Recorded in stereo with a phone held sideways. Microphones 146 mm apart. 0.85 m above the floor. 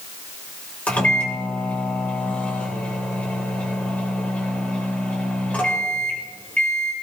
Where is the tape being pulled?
I don't hear tape being pulled.